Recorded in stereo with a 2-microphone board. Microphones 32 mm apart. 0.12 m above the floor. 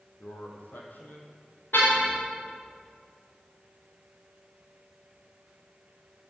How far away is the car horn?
About 6 m.